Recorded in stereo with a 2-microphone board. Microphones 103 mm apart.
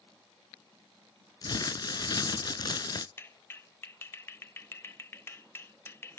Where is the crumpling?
40° left (ahead or behind), 0.5 m.